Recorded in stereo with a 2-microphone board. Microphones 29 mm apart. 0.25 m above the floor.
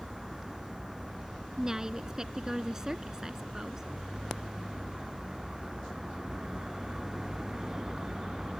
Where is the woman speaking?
20° right (ahead or behind).